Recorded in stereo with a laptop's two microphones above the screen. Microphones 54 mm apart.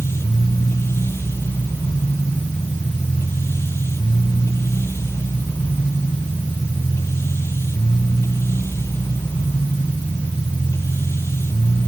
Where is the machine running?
50° left (ahead or behind).